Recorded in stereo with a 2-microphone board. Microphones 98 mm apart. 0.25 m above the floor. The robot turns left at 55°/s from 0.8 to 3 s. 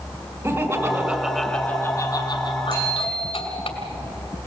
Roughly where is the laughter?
Behind.